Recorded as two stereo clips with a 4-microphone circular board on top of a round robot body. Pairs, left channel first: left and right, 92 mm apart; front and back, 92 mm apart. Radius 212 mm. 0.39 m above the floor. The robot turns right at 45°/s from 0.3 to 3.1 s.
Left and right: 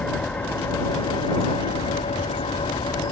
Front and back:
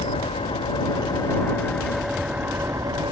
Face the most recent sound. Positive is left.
turn(degrees=140)